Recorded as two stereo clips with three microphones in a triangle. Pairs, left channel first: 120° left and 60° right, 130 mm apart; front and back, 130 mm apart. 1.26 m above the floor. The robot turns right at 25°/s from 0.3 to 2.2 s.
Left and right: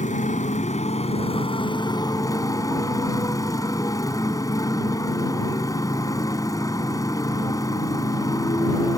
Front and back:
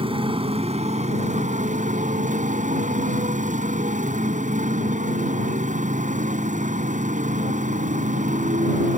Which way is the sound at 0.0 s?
135° left.